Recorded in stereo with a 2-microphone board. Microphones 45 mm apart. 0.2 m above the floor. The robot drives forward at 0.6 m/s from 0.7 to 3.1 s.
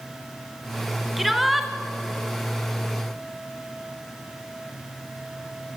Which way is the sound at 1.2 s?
Centre (ahead or behind).